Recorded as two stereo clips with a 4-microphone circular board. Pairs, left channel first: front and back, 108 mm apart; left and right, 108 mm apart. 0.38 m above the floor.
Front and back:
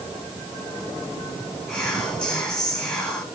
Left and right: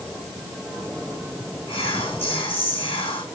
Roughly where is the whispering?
Left.